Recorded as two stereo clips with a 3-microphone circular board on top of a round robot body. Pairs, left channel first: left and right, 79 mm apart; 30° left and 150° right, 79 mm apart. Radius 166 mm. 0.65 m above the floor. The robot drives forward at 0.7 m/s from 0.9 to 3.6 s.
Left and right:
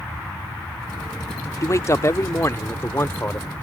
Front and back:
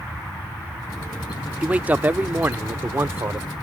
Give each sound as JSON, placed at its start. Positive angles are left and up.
{"t": 1.6, "sound": "a man speaking", "azimuth_deg": 140}